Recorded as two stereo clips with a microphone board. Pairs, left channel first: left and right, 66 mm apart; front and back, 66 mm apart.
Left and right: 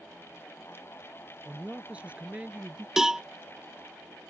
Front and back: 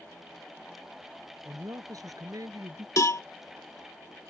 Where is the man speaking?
160° right.